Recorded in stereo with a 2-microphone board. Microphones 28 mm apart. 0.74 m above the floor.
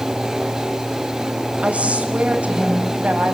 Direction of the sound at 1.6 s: 45° right (ahead or behind).